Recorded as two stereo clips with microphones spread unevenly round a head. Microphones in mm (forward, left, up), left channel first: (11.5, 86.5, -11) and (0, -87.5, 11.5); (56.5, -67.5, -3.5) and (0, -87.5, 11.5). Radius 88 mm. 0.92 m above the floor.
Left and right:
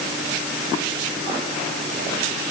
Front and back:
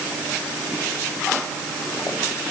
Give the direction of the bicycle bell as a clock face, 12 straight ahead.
I don't hear a bicycle bell.